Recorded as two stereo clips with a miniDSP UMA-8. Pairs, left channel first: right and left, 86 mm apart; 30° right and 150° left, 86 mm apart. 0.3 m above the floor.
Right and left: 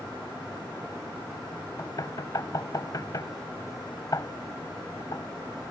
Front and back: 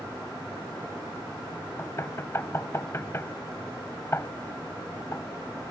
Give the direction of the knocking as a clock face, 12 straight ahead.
3 o'clock.